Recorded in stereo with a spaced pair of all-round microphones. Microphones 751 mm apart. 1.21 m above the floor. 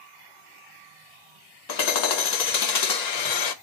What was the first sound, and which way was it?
Hammering, 65° left (ahead or behind).